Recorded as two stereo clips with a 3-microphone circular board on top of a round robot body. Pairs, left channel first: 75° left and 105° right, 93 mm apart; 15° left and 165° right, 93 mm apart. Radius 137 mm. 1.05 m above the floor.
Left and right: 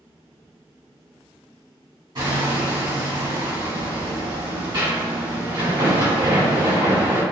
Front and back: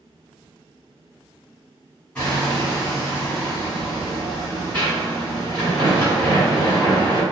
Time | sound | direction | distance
2.1 | hammering | 65° right | 1.8 m